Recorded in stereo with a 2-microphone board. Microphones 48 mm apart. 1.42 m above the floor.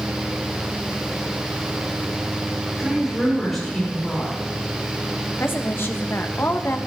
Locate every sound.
2.8 s a woman speaking: 5° left (ahead or behind), 5.5 m
5.4 s a woman speaking: 50° left (ahead or behind), 1.4 m